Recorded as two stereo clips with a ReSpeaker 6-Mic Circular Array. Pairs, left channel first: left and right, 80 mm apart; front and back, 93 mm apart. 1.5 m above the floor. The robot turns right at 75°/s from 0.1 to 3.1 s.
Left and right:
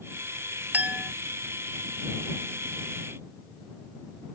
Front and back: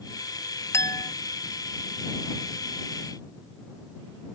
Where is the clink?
35° right; by 1.1 s 5° right.